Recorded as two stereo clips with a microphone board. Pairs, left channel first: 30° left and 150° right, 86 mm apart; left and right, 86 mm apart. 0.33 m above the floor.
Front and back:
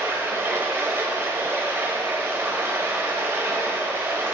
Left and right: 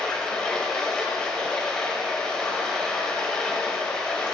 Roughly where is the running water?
Behind.